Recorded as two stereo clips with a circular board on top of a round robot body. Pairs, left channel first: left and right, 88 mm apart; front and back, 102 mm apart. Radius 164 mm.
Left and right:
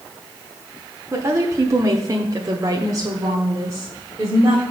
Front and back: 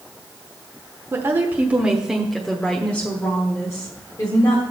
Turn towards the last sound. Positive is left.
turn(degrees=-40)